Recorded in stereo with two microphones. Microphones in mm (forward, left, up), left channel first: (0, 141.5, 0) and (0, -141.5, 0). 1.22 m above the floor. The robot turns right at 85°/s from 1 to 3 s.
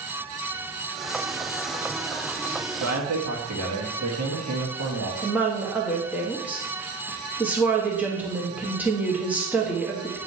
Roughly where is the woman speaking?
Centre.